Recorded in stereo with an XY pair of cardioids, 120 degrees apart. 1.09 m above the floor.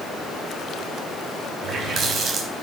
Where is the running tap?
55° right, 5 m.